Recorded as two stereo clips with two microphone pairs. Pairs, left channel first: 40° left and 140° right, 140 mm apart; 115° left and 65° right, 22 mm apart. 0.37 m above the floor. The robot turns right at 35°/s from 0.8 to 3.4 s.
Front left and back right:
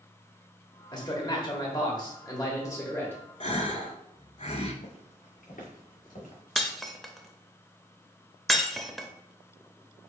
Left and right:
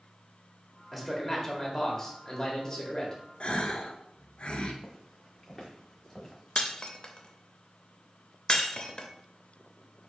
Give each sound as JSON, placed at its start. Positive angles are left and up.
{"t": 0.9, "sound": "a man speaking", "azimuth_deg": 25, "distance_m": 1.2}
{"t": 3.4, "sound": "a gasp", "azimuth_deg": 75, "distance_m": 0.7}
{"t": 4.8, "sound": "footsteps", "azimuth_deg": 40, "distance_m": 1.5}
{"t": 6.6, "sound": "breaking glass", "azimuth_deg": 130, "distance_m": 0.6}